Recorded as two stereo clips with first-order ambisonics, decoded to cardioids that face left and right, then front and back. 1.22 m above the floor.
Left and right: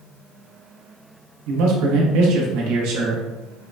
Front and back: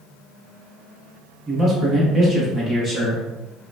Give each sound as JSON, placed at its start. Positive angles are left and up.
{"t": 1.5, "sound": "a man speaking", "azimuth_deg": -105, "distance_m": 1.3}